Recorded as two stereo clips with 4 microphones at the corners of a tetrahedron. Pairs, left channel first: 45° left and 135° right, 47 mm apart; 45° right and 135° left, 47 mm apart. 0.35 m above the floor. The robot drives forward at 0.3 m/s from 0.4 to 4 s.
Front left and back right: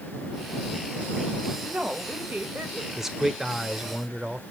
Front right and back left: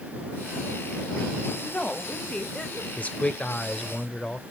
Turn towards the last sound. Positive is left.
turn(degrees=-90)